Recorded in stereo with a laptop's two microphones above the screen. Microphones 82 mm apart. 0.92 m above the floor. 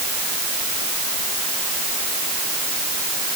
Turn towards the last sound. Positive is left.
No sound to turn to.